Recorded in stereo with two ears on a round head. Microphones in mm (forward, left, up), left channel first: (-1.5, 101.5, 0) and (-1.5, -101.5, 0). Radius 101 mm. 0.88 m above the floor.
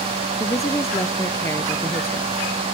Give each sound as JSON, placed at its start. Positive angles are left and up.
{"t": 0.4, "sound": "a woman speaking", "side_deg": 15}